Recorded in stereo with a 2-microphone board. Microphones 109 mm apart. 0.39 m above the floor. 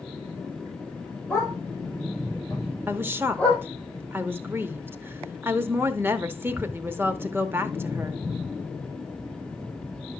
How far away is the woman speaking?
About 0.8 m.